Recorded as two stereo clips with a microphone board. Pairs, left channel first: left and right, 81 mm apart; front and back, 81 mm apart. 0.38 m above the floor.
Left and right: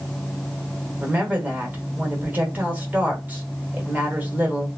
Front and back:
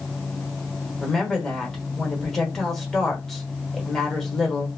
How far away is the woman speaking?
About 1.1 m.